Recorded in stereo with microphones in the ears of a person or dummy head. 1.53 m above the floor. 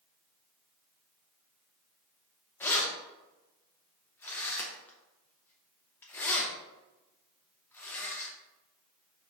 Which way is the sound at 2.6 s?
10° left (ahead or behind).